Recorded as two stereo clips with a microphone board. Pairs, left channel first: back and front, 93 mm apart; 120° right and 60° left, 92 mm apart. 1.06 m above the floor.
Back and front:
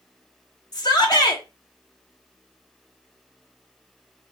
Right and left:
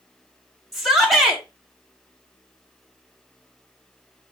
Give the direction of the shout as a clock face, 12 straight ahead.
7 o'clock.